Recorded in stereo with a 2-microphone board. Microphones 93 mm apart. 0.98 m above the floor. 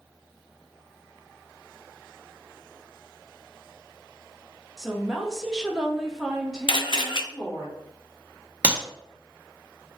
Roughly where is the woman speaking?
Centre.